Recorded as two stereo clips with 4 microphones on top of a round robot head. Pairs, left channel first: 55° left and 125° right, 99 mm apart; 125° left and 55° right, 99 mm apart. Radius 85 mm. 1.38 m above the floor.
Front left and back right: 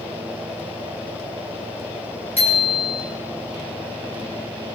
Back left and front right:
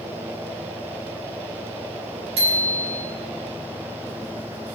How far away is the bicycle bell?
About 6 m.